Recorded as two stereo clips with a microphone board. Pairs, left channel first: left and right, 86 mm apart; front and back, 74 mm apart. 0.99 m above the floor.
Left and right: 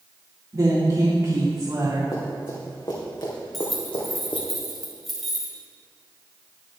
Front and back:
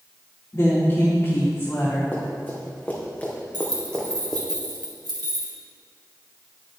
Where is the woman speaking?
50° right, 2.5 m.